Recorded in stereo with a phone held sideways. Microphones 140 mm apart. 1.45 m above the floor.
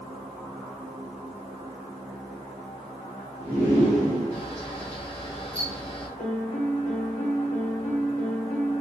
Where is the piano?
70° left (ahead or behind), 2 m.